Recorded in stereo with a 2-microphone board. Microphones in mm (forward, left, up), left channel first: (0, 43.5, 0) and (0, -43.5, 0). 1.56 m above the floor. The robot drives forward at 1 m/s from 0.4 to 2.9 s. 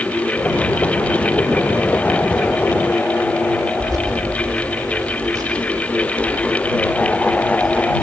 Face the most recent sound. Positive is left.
turn(degrees=-50)  # may be behind; listen again after turning